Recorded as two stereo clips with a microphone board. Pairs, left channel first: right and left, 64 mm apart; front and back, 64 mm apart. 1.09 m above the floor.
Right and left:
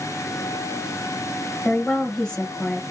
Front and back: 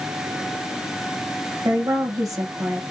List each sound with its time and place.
1.6 s a woman speaking: 165° right, 0.8 m